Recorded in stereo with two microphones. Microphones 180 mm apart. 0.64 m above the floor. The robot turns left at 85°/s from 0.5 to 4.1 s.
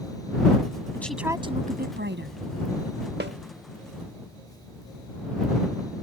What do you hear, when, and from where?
0.9 s a woman speaking: 15° left; by 2.4 s 105° right
3.2 s a snare drum: 70° right (ahead or behind); by 3.4 s 80° right